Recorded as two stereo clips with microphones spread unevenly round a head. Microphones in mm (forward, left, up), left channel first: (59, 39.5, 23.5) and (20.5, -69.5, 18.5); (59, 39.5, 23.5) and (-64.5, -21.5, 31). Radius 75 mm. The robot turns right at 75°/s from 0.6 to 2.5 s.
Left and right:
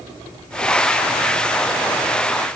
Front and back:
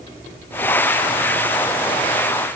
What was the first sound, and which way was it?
Only background noise.